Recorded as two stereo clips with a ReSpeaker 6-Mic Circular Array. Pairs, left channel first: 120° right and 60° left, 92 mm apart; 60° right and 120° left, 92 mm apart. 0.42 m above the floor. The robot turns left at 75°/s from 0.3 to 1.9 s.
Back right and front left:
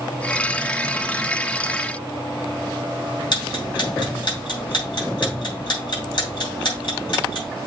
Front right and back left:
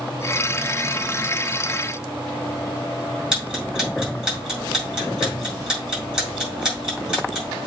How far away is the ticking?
About 5 m.